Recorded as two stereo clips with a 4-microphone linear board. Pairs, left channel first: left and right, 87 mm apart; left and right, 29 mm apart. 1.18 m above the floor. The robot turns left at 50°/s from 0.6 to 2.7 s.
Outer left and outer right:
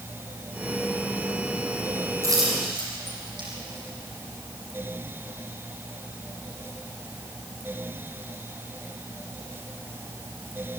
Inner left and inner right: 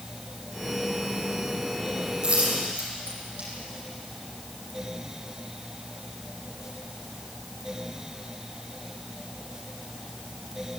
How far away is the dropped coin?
About 8 m.